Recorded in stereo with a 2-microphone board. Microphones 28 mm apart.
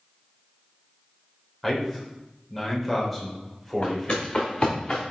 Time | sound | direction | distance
1.6 | a man speaking | centre (ahead or behind) | 2.5 m
3.8 | footsteps | 35° left (ahead or behind) | 3 m